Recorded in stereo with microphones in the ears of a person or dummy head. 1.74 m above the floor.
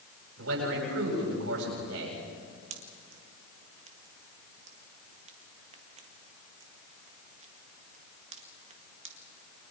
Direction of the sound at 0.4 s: 85° right.